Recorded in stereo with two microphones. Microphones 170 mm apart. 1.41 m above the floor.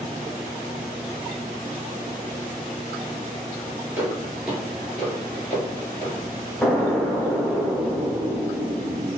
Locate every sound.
4.0 s footsteps: 15° right (ahead or behind), 1.7 m; by 6.2 s 15° left (ahead or behind), 2.5 m
6.6 s an explosion: 10° left (ahead or behind), 0.7 m